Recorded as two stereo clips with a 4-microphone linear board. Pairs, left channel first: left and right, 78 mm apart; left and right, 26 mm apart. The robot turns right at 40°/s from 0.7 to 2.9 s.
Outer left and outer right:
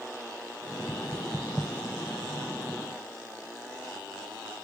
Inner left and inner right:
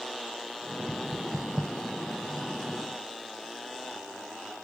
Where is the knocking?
30° left (ahead or behind), 1.0 m; by 1.7 s 5° left (ahead or behind), 1.0 m.